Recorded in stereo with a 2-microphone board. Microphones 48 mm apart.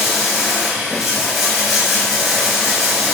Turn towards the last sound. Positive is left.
turn(degrees=-5)  # may be behind; listen again after turning